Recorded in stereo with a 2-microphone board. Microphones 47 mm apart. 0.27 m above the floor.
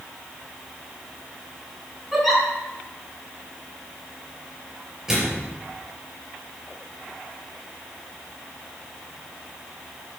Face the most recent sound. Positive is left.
turn(degrees=-10)  # may be behind; listen again after turning